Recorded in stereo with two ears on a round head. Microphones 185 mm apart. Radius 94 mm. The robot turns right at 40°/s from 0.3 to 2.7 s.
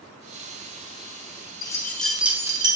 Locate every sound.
1.6 s keys jangling: 20° left (ahead or behind), 1.0 m; by 2.8 s 25° right (ahead or behind), 1.0 m